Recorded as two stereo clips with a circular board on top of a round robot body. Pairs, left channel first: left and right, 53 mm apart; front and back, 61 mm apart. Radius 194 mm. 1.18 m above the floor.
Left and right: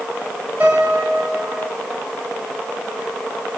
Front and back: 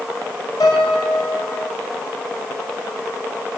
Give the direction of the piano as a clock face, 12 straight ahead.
1 o'clock.